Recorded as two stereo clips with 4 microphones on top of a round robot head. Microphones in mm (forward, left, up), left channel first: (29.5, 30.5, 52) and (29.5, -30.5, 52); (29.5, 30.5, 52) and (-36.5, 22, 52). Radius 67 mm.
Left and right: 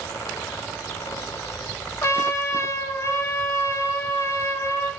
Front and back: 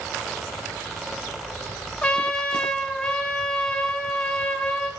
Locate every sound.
2.0 s a trumpet: 80° left, 0.5 m